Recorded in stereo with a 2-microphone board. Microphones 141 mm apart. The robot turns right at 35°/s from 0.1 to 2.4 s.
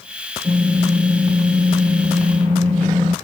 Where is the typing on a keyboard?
160° right, 2.5 m; by 3.1 s 95° right, 2.5 m.